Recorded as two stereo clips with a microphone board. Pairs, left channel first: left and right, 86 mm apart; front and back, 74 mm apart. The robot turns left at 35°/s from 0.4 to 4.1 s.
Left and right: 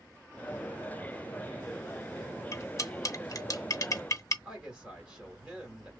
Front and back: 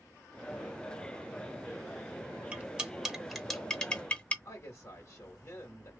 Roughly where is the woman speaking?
Ahead right.